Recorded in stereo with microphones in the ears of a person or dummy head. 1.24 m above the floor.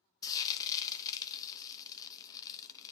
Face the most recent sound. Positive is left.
turn(degrees=25)  # may be behind; listen again after turning